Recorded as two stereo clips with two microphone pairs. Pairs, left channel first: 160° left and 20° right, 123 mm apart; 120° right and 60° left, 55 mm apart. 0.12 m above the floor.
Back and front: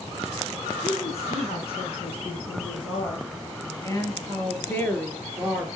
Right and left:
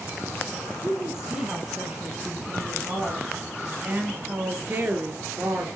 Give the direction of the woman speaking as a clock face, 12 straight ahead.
7 o'clock.